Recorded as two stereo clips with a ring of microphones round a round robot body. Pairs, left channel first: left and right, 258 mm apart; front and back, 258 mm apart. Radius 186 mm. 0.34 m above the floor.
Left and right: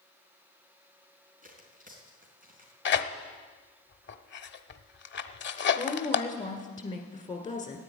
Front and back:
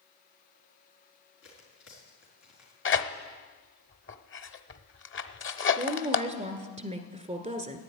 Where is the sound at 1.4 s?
35° right, 4 m.